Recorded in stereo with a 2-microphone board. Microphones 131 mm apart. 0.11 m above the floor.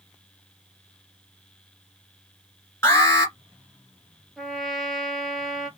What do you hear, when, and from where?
2.8 s an alarm: 20° left (ahead or behind), 1.9 m
4.4 s a trumpet: centre (ahead or behind), 0.6 m